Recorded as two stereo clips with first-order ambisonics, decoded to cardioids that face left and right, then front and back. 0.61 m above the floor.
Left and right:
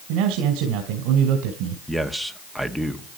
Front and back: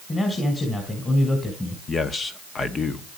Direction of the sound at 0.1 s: 75° right.